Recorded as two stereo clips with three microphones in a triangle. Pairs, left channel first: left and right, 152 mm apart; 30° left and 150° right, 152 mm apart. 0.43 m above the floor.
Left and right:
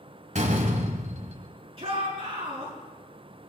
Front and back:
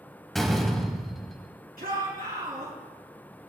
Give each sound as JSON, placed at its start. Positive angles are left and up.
{"t": 0.3, "sound": "a door slam", "azimuth_deg": -60, "distance_m": 1.4}
{"t": 1.8, "sound": "a shout", "azimuth_deg": -140, "distance_m": 5.0}